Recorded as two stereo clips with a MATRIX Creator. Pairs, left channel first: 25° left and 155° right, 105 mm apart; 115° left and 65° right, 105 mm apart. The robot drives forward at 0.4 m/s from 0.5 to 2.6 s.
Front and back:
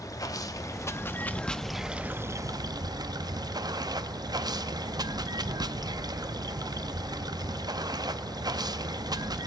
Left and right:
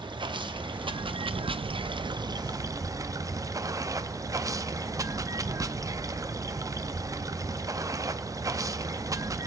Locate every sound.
0.0 s running water: 30° right, 0.8 m; by 9.5 s 115° right, 0.5 m